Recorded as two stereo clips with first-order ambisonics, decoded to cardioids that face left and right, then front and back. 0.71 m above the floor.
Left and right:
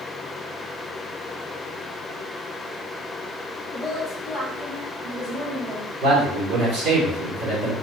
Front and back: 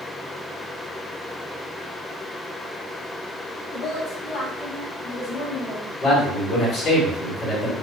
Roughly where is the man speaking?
Ahead right.